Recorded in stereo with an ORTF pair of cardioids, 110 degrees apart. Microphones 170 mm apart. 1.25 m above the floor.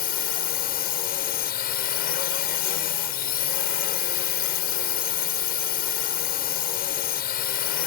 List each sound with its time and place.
0.0 s a drone: 60° left